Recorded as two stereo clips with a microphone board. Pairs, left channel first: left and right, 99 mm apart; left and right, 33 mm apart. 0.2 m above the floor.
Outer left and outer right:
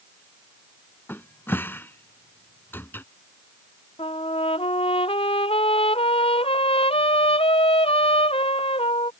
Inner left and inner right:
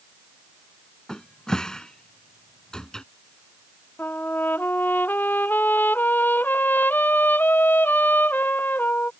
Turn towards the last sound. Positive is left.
turn(degrees=85)